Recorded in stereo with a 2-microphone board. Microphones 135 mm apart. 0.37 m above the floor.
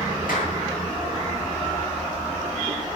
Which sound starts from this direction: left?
A clap, at 0.3 s.